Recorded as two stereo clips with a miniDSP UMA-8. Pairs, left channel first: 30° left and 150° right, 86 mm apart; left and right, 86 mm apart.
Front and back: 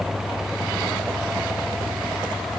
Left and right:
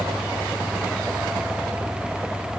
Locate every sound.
Only background noise.